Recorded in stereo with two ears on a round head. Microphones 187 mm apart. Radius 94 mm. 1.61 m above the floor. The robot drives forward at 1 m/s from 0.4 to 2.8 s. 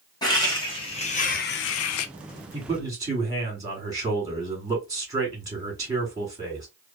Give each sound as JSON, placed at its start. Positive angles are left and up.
{"t": 0.2, "sound": "laughter", "side_deg": 20, "distance_m": 1.7}
{"t": 2.5, "sound": "a man speaking", "side_deg": -20, "distance_m": 2.5}